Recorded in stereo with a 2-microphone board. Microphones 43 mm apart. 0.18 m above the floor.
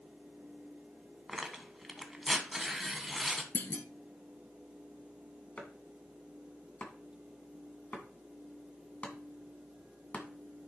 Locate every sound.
1.3 s tearing paper: centre (ahead or behind), 1.3 m
3.5 s a clunk: 55° left (ahead or behind), 0.8 m
5.6 s chopping: 35° left (ahead or behind), 2.0 m